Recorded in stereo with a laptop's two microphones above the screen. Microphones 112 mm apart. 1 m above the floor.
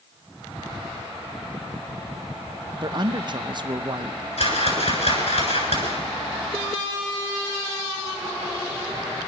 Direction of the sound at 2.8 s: 45° right (ahead or behind).